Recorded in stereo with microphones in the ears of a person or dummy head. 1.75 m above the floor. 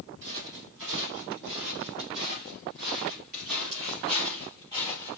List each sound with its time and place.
0.2 s footsteps: 60° right (ahead or behind), 3.5 m; by 5.2 s 25° right (ahead or behind), 3 m